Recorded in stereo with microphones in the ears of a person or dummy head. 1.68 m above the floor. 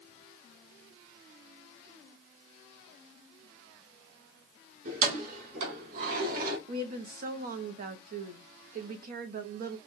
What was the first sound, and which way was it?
Keys jangling, 55° right (ahead or behind).